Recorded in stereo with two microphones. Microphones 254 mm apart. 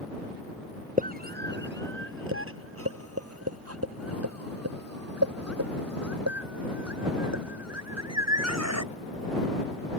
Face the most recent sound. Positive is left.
turn(degrees=-85)